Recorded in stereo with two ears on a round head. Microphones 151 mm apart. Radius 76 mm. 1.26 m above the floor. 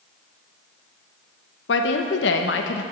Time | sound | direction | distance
1.7 | a woman speaking | 80° left | 0.9 m